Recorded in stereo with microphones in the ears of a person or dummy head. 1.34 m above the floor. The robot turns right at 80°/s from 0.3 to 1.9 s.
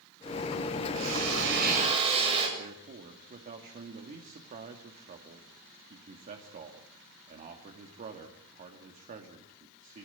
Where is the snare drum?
No snare drum in this recording.